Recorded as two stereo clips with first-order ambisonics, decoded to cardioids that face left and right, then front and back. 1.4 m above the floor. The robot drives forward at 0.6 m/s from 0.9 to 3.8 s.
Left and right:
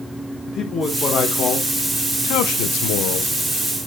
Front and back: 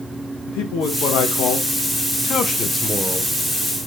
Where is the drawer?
No drawer in this recording.